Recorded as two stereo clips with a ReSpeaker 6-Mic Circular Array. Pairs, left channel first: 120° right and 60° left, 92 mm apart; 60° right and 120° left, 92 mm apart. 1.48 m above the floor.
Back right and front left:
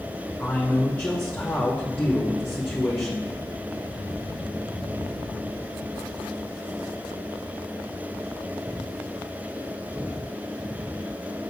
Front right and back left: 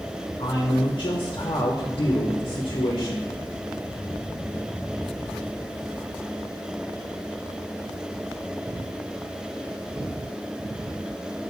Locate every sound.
0.4 s a man speaking: 50° right, 1.3 m